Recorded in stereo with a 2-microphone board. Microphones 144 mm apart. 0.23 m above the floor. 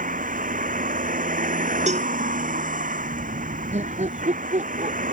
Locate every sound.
0.0 s a vehicle: 70° right (ahead or behind)
1.9 s a cowbell: 55° right (ahead or behind)
3.7 s laughter: 50° right (ahead or behind)